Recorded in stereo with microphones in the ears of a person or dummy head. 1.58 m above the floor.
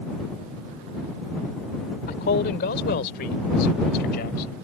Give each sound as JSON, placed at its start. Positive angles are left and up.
{"t": 2.1, "sound": "a man speaking", "side_deg": 55}